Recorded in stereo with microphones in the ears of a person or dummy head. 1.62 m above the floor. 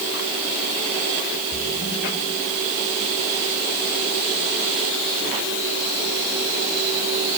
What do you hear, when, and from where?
1.5 s a splash: 55° left (ahead or behind), 4 m